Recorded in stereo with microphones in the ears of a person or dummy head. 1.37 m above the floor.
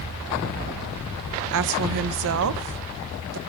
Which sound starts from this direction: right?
A woman speaking, at 1.5 s.